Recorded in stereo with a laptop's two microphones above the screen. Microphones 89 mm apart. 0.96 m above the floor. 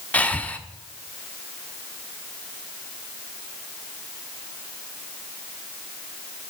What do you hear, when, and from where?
0.1 s breathing: 15° left (ahead or behind), 1.0 m